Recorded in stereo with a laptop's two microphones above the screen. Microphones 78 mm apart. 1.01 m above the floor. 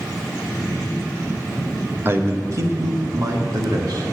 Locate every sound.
2.0 s a man speaking: 30° right (ahead or behind), 1.0 m; by 4.0 s 55° right (ahead or behind), 2 m